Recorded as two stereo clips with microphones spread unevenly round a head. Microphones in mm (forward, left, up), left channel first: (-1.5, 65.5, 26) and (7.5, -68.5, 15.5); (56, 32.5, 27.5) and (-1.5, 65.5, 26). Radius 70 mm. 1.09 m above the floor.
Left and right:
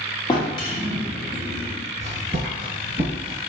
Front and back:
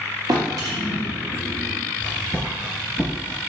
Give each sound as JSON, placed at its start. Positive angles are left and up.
{"t": 0.3, "sound": "a drawer", "azimuth_deg": 145, "distance_m": 0.8}
{"t": 2.0, "sound": "footsteps", "azimuth_deg": -70, "distance_m": 1.1}